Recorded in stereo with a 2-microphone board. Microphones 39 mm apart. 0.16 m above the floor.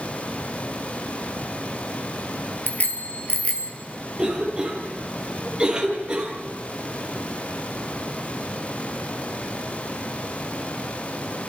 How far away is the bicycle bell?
About 2.5 m.